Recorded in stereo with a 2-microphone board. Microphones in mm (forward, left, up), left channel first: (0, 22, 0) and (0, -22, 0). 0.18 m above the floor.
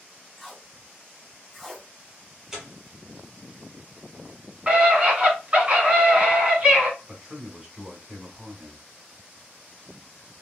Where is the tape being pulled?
10° left (ahead or behind), 1.4 m.